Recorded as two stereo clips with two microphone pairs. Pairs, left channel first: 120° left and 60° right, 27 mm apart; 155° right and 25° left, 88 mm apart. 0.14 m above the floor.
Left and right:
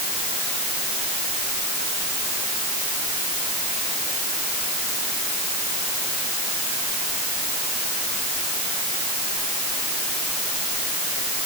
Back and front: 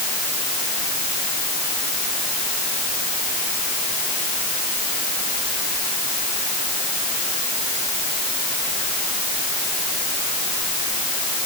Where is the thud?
I don't hear a thud.